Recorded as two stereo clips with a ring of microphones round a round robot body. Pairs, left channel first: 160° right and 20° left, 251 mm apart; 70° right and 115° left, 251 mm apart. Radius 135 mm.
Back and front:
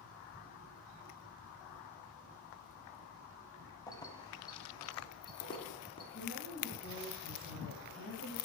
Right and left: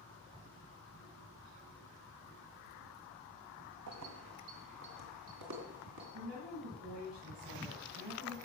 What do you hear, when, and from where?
3.9 s keys jangling: 125° left, 1.6 m; by 6.0 s 130° left, 3.5 m
6.1 s a woman speaking: 145° left, 8 m